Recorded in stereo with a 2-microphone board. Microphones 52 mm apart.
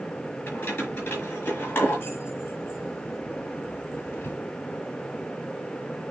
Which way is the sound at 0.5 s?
30° left (ahead or behind).